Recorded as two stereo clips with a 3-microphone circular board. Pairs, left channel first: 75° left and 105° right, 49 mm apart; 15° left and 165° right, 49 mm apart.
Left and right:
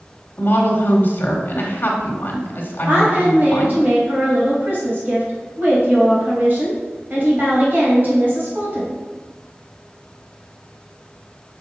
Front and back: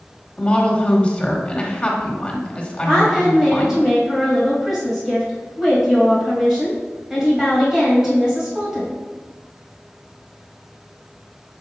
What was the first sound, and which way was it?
A woman speaking, 70° left.